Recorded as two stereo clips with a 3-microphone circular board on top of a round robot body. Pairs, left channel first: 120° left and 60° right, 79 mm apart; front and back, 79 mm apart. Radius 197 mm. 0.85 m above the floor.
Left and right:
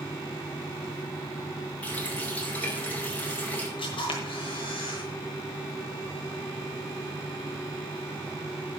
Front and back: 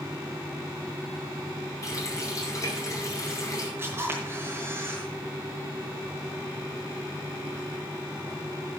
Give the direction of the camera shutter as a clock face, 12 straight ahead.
8 o'clock.